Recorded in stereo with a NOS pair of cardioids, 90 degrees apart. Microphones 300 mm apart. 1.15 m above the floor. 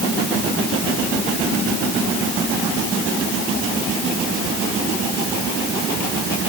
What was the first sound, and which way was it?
Only background noise.